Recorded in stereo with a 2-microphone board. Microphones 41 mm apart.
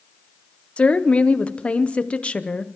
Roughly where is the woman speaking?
Left.